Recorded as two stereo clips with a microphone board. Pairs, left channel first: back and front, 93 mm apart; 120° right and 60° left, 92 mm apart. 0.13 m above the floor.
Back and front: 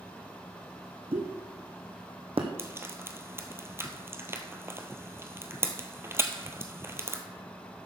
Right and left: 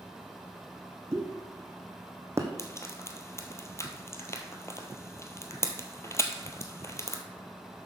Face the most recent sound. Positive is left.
turn(degrees=-60)